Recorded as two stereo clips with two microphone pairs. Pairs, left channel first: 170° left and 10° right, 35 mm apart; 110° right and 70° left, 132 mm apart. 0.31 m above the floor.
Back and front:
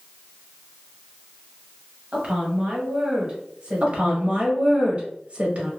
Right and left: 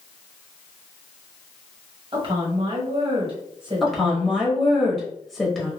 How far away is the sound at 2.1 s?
About 1.4 m.